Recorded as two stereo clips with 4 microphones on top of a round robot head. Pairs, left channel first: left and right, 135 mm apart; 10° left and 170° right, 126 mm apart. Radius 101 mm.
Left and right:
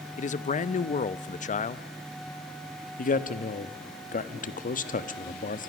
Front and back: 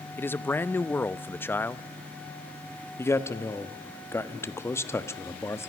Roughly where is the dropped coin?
I don't hear a dropped coin.